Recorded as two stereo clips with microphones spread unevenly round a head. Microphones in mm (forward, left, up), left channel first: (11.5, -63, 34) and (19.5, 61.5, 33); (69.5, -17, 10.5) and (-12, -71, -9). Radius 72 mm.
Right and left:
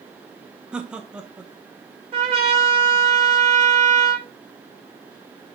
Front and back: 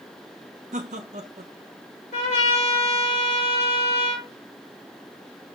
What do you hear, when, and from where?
0.7 s laughter: 170° left, 1.0 m
2.1 s a trumpet: 40° left, 3.5 m